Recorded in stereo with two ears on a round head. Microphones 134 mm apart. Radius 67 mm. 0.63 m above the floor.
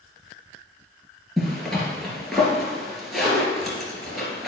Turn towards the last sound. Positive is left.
turn(degrees=0)  # may be behind; listen again after turning